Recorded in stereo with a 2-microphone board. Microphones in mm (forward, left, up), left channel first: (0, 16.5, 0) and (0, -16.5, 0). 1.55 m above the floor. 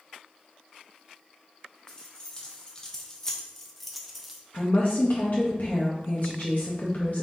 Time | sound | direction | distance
1.9 | keys jangling | 20° left (ahead or behind) | 1.2 m
4.5 | a woman speaking | 50° left (ahead or behind) | 0.7 m